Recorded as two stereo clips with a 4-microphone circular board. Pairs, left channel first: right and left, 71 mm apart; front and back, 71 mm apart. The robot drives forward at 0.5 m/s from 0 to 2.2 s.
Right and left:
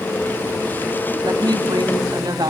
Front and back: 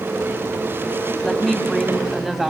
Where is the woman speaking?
80° left, 2.5 m; by 2.5 s 95° left, 2.5 m.